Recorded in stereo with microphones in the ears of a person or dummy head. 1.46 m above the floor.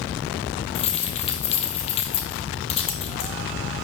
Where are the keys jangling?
35° left (ahead or behind), 1.2 m.